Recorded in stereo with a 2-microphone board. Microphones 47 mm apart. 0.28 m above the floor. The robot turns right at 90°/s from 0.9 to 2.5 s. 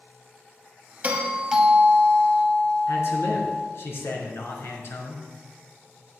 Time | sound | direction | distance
1.0 | a doorbell | 60° right | 2 m
2.9 | a man speaking | 65° left (ahead or behind) | 3.5 m